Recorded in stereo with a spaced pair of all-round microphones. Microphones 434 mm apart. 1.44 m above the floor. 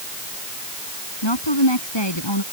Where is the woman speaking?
75° left (ahead or behind).